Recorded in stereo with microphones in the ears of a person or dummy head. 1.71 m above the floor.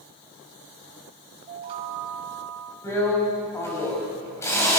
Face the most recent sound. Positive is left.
turn(degrees=15)  # may be behind; listen again after turning